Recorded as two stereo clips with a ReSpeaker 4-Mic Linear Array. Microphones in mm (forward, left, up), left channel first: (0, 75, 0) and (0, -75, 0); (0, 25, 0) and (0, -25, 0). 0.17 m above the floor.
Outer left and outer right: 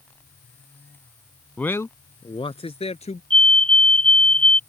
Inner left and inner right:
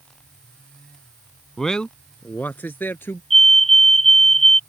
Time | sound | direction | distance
1.6 | a man speaking | 10° left (ahead or behind) | ?
3.3 | a fire alarm | 10° left (ahead or behind) | ?